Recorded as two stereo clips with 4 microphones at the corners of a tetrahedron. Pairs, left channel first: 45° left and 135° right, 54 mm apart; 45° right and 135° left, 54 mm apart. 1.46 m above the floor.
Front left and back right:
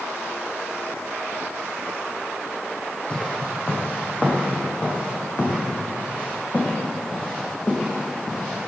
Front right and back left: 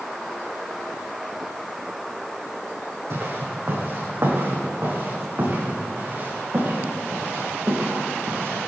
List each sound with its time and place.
3.1 s footsteps: 110° left, 5 m; by 8.7 s 85° left, 9.5 m